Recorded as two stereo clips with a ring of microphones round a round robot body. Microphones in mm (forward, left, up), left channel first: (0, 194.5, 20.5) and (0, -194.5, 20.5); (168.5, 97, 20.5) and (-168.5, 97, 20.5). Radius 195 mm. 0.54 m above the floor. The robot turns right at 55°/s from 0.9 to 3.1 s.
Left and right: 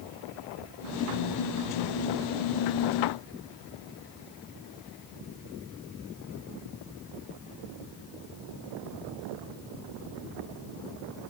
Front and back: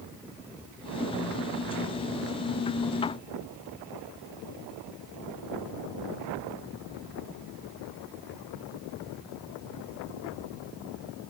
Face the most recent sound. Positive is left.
No sound to turn to.